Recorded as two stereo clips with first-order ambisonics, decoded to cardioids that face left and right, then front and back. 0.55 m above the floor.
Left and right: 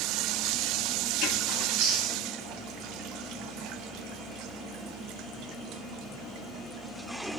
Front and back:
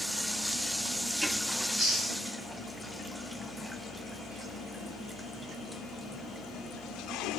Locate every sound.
1.6 s chewing: 105° right, 7 m